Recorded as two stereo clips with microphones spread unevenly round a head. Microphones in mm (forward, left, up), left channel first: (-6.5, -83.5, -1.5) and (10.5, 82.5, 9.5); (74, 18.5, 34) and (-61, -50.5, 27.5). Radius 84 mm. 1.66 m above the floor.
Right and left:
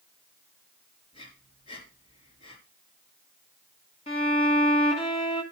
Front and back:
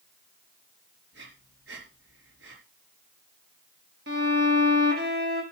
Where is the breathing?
155° right, 4 m.